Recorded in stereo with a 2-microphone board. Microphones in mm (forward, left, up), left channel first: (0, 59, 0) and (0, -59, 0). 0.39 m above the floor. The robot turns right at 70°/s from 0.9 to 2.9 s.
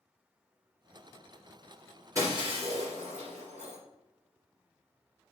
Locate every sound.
2.1 s breaking glass: 25° right (ahead or behind), 3 m; by 3.8 s 80° right, 3 m